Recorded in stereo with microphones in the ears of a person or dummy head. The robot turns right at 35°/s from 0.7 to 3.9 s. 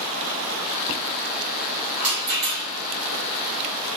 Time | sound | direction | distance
2.0 | a rattle | 60° right (ahead or behind) | 1.0 m